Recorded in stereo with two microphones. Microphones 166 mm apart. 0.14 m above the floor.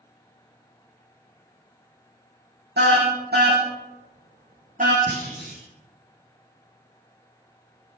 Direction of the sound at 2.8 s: 80° right.